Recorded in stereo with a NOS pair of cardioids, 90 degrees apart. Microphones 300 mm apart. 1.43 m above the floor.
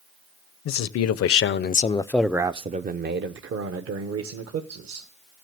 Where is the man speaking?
70° left, 0.9 m; by 5.1 s 60° right, 1.8 m.